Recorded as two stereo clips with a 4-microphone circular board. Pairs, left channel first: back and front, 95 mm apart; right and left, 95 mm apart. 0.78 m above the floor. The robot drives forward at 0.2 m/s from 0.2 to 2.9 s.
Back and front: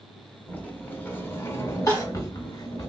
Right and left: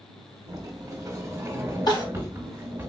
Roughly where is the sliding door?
Behind left.